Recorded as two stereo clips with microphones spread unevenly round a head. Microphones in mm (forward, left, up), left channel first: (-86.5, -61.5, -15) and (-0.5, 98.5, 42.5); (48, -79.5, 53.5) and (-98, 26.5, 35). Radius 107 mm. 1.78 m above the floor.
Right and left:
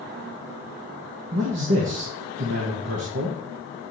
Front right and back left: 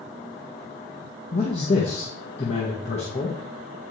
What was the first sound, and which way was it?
A man speaking, 25° left.